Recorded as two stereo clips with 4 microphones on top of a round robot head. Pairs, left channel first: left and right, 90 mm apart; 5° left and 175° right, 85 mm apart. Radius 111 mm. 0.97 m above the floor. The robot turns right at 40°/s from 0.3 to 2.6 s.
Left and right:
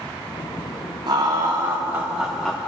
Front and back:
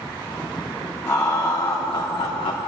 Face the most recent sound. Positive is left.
turn(degrees=0)